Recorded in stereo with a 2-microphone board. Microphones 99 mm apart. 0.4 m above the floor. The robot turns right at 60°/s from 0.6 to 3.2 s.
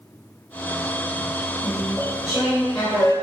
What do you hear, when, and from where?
1.6 s chewing: 50° right, 1.3 m; by 3.1 s 40° left, 1.3 m